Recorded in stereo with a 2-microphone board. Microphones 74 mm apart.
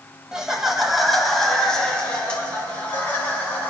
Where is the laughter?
10° right (ahead or behind), 1.7 m; by 3.7 s 25° left (ahead or behind), 3 m.